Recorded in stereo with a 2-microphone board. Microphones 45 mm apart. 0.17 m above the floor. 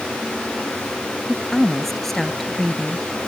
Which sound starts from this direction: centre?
A woman speaking, at 1.3 s.